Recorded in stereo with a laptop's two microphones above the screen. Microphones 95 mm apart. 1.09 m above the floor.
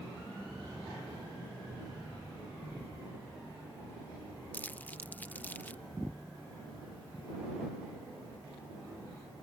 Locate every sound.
4.5 s crumpling: 20° left (ahead or behind)